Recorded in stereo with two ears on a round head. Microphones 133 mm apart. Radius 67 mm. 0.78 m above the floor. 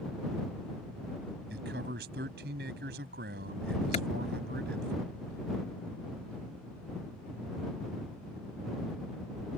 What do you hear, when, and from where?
1.5 s a man speaking: 75° right (ahead or behind)
3.9 s a clap: 45° left (ahead or behind)